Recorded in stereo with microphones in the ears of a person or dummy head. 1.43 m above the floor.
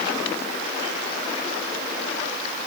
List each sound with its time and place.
Only background noise.